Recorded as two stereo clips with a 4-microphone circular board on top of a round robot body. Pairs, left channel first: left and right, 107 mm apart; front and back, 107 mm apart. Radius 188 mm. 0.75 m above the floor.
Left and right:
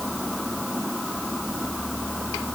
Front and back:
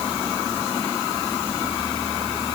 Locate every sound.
Only background noise.